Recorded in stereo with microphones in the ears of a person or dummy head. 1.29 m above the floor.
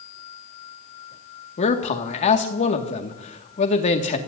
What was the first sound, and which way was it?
A man speaking, 35° left (ahead or behind).